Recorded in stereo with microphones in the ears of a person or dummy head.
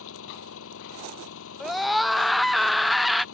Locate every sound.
0.0 s an engine running: 80° left
1.6 s a scream: centre (ahead or behind)